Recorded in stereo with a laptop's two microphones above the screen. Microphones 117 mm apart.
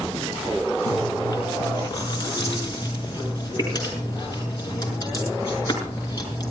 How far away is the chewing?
About 7 m.